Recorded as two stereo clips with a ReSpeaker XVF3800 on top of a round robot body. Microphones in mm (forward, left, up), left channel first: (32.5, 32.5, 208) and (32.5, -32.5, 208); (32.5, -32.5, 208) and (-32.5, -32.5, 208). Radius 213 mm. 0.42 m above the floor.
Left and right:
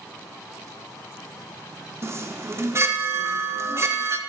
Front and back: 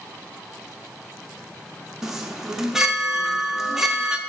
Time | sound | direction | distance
2.0 | a chime | 100° right | 1.1 m